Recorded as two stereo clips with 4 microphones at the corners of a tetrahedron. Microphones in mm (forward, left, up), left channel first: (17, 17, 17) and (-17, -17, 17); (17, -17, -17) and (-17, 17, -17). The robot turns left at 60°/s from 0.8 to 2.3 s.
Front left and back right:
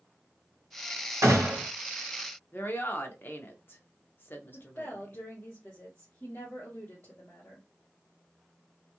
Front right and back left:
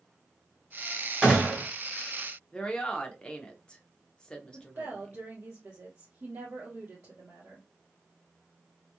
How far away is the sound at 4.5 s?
About 1.5 m.